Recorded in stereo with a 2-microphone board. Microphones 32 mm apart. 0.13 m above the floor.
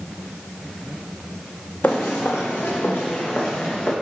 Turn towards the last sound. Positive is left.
turn(degrees=55)  # may be behind; listen again after turning